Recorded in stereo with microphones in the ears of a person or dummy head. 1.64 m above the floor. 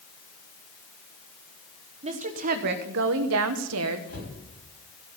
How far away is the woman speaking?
About 1.2 m.